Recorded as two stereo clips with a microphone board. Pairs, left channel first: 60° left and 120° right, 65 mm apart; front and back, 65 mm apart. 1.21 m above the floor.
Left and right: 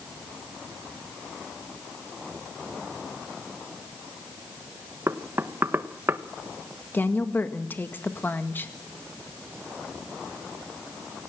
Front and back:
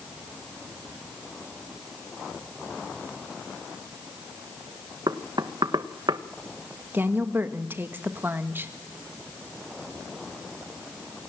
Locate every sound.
5.1 s knocking: 175° right, 1.1 m
6.9 s a woman speaking: 120° left, 1.8 m